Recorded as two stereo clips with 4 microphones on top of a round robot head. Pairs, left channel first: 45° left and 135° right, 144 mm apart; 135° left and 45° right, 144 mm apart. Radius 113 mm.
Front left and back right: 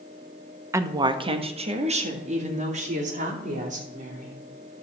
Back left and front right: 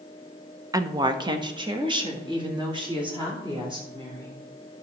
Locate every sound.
0.7 s a woman speaking: 85° right, 0.7 m; by 4.3 s 100° right, 3.5 m